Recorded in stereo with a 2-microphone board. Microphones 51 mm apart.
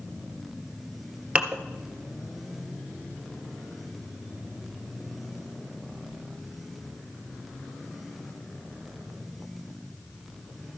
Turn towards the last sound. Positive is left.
turn(degrees=-25)  # may be behind; listen again after turning